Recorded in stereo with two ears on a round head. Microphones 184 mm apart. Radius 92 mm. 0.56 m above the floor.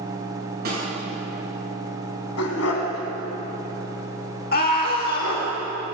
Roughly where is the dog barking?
Left.